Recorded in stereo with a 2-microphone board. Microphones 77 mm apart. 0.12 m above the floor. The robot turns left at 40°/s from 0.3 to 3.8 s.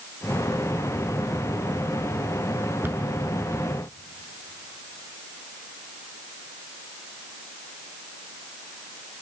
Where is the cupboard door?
30° right (ahead or behind), 0.9 m; by 3.1 s 25° right (ahead or behind), 0.9 m.